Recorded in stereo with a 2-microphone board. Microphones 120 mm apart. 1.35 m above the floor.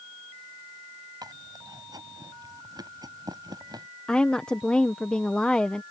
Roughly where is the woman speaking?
Centre.